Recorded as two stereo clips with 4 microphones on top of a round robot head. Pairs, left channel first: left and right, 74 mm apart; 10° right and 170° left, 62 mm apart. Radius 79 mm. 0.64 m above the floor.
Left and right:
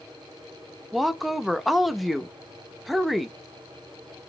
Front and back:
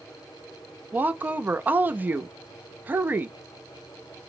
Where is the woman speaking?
Straight behind, 0.5 m.